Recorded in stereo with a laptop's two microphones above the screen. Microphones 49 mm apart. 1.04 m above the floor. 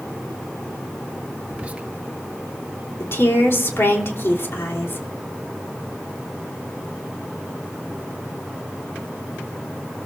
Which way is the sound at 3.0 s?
60° left (ahead or behind).